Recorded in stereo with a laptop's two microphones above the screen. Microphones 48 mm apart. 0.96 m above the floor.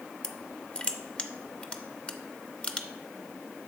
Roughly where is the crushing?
Left.